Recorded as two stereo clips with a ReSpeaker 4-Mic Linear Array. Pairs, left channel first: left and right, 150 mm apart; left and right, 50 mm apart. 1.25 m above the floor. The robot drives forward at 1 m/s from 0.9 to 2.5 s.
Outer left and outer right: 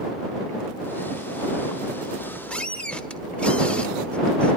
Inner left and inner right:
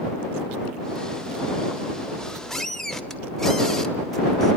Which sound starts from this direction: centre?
A squeak, at 2.1 s.